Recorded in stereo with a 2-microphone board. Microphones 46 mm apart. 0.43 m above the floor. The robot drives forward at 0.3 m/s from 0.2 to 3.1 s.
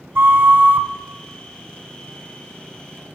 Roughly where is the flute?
Right.